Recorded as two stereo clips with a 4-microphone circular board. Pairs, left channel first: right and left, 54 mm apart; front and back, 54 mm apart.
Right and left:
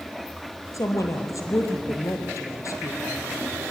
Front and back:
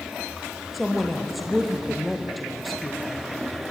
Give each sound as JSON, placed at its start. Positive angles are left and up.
{"t": 0.7, "sound": "a woman speaking", "azimuth_deg": -90, "distance_m": 3.5}